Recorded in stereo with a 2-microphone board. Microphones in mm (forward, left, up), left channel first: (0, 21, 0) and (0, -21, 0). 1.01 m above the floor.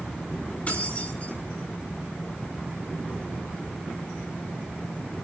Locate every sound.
0.7 s keys jangling: 40° left (ahead or behind), 6.5 m